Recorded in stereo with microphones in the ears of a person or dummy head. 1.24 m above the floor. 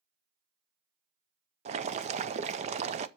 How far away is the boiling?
About 0.6 m.